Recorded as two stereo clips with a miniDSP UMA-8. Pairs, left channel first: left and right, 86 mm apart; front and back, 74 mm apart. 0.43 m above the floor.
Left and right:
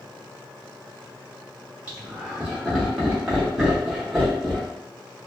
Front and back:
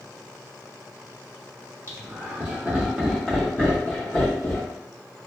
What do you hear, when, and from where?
1.9 s laughter: 160° right, 1.2 m; by 4.8 s 10° left, 1.4 m